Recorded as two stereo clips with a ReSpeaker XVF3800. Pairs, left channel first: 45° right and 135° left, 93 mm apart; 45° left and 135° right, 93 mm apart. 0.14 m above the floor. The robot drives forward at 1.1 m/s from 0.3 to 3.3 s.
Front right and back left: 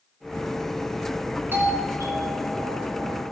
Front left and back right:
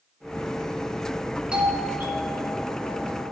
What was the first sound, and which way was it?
A doorbell, 160° left.